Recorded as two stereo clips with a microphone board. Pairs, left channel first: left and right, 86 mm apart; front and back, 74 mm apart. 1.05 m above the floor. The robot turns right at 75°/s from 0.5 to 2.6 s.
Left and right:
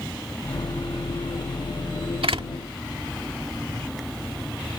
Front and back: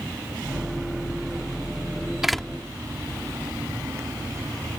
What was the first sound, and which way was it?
A door slam, 95° right.